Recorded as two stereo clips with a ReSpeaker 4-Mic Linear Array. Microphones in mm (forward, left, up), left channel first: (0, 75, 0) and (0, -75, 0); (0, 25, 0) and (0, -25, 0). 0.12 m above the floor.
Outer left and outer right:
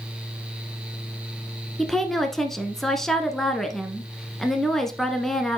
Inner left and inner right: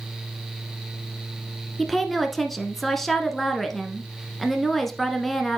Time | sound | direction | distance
1.8 | a woman speaking | 5° left (ahead or behind) | 1.2 m